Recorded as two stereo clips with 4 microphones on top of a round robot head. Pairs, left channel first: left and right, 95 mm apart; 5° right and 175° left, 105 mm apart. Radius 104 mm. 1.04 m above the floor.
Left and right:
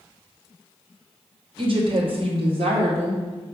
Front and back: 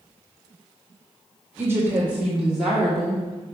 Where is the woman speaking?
115° right, 1.9 m; by 3.2 s 95° right, 3 m.